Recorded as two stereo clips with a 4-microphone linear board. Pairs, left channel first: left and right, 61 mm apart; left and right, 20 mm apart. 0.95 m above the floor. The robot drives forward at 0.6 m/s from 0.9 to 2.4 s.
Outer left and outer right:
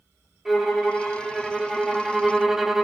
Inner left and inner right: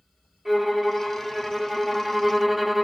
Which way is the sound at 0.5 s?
Centre (ahead or behind).